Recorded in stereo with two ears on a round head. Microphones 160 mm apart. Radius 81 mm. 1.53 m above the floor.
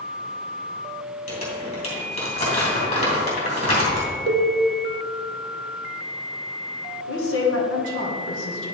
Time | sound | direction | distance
1.3 | crumpling | 40° left (ahead or behind) | 2.5 m
4.3 | a cowbell | 70° right (ahead or behind) | 0.8 m
7.1 | a woman speaking | 75° left (ahead or behind) | 1.9 m